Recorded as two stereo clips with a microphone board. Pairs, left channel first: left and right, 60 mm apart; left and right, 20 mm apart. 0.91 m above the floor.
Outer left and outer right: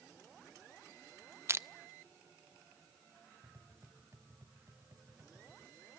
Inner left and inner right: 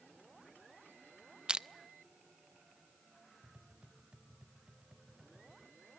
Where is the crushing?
40° right (ahead or behind), 0.5 m.